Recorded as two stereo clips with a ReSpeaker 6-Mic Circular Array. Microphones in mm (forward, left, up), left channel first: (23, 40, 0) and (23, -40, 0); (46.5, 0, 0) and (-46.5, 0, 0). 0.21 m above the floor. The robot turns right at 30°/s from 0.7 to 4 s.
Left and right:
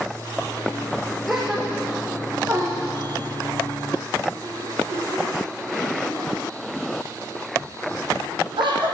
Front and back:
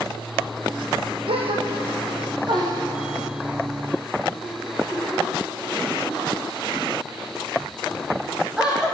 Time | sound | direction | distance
1.3 | a gasp | straight behind | 5.5 m